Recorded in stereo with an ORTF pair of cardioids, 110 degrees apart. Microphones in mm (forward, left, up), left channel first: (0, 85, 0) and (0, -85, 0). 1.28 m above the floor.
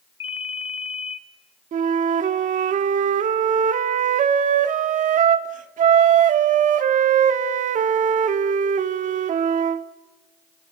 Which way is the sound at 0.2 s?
35° left.